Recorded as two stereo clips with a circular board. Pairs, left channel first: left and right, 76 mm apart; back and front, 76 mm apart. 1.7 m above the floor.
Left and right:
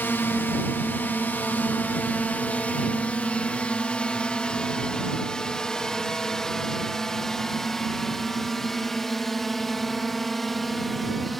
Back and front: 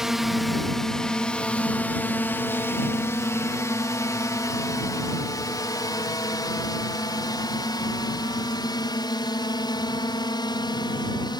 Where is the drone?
75° left; by 11.4 s straight behind.